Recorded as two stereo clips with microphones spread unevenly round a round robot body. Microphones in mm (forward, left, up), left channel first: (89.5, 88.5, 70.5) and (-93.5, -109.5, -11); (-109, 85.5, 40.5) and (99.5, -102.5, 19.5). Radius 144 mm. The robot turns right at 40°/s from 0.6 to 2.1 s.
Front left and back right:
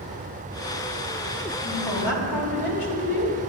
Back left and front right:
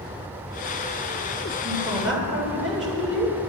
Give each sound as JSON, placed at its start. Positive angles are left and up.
{"t": 1.6, "sound": "a woman speaking", "azimuth_deg": 30, "distance_m": 3.0}